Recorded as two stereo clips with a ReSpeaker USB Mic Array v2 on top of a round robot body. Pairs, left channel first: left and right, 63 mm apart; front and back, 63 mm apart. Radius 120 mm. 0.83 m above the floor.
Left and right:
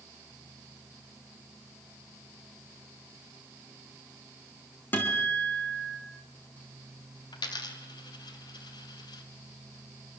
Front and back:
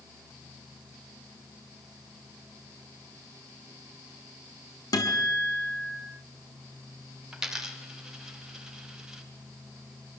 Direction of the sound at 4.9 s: 25° left.